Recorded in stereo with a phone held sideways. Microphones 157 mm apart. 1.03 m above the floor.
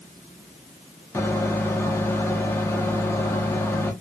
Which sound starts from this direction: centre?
A microwave, at 1.1 s.